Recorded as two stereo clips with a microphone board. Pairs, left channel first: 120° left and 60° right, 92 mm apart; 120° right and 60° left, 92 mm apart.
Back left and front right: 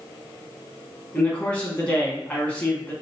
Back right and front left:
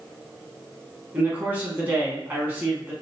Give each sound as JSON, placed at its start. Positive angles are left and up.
{"t": 1.1, "sound": "a man speaking", "azimuth_deg": 80, "distance_m": 1.0}